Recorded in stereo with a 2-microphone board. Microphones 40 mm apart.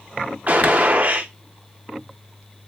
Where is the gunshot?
40° right (ahead or behind), 0.6 m.